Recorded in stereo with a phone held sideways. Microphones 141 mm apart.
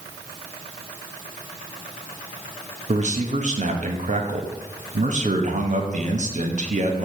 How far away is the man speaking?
About 0.8 m.